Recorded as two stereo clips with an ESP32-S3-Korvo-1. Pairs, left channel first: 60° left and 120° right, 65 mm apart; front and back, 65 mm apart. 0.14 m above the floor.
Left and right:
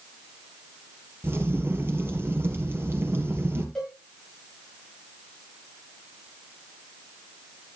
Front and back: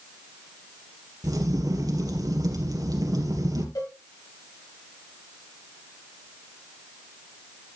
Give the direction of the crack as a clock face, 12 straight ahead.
6 o'clock.